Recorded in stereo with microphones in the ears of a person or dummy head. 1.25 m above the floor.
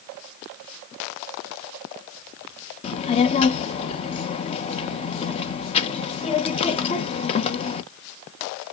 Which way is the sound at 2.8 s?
35° left (ahead or behind).